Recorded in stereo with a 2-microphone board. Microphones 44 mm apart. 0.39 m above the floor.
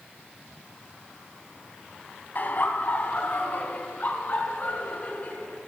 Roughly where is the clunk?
I don't hear a clunk.